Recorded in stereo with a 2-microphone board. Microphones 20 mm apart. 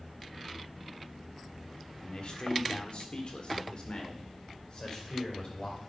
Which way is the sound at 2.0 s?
50° left (ahead or behind).